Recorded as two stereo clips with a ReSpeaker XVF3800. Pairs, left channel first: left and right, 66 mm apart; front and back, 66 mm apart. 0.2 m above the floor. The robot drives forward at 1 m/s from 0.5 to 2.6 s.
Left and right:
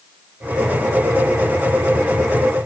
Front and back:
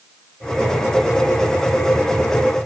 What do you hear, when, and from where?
Only background noise.